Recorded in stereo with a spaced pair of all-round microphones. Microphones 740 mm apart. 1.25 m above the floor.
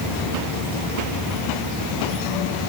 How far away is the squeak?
No squeak in this recording.